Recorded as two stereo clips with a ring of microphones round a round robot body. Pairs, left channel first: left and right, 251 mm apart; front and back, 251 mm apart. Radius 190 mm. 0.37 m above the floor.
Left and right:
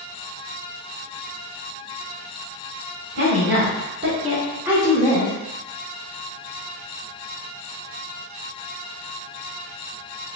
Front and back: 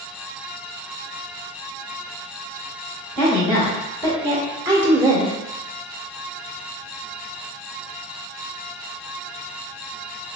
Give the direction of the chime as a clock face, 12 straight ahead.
I don't hear a chime.